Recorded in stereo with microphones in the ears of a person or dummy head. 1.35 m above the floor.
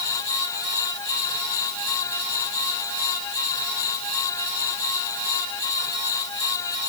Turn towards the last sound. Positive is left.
No sound to turn to.